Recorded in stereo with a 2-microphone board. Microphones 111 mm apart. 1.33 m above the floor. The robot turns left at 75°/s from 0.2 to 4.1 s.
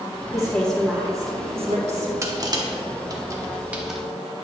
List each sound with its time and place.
0.3 s a woman speaking: 35° left, 1.5 m; by 2.1 s 100° right, 1.5 m
2.2 s crushing: 25° right (ahead or behind), 0.9 m; by 4.0 s centre (ahead or behind), 0.9 m